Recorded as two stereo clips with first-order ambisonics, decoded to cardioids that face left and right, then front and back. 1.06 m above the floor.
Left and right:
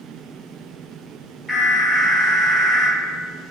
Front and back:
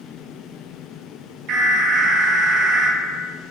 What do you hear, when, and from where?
1.5 s an alarm: straight behind, 1.0 m